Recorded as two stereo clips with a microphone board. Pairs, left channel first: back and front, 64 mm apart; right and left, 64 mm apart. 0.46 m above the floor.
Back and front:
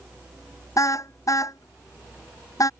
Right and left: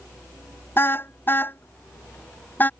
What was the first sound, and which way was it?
A car horn, 145° right.